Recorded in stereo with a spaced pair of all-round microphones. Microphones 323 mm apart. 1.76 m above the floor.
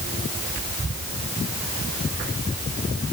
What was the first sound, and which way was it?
Only background noise.